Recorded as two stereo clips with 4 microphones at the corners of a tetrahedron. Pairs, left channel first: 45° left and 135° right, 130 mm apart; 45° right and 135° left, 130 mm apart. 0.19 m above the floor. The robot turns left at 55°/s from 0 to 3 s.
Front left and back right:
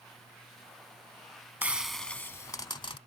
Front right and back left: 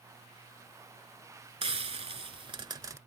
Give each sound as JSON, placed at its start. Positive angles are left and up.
{"t": 1.6, "sound": "frying", "azimuth_deg": 150}